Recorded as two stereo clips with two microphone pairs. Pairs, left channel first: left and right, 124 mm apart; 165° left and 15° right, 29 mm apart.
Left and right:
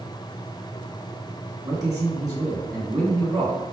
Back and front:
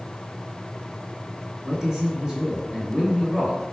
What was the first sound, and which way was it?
A man speaking, 65° right.